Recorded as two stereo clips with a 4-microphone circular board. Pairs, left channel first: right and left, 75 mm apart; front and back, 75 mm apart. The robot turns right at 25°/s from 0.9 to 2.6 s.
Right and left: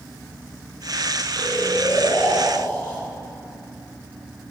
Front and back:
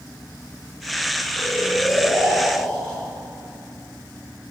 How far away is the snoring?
About 3 m.